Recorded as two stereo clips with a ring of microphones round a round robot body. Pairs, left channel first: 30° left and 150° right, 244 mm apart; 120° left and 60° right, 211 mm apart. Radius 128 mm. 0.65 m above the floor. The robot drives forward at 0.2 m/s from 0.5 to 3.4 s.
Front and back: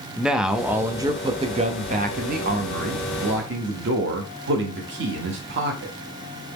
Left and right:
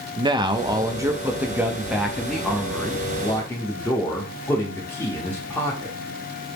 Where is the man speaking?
70° right, 0.5 m; by 6.0 s 165° right, 0.7 m.